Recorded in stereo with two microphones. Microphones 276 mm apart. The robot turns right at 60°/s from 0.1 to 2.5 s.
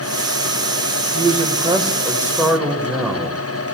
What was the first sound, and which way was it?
A man speaking, 20° right (ahead or behind).